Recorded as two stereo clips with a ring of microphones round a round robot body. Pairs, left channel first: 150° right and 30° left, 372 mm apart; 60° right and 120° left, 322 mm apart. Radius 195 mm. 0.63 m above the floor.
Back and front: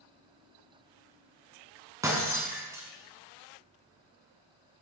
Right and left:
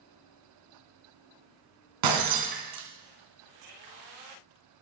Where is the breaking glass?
110° left, 3 m.